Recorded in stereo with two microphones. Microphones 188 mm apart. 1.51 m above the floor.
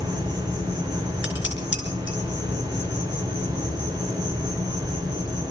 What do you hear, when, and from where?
0.0 s an insect: 25° right (ahead or behind), 4.5 m
1.2 s dishes clattering: 85° left, 4 m